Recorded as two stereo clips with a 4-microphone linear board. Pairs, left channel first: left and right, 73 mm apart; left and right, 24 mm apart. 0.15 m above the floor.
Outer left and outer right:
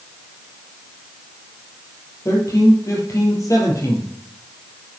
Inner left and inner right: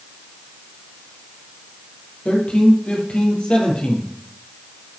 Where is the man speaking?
45° left (ahead or behind), 4.5 m.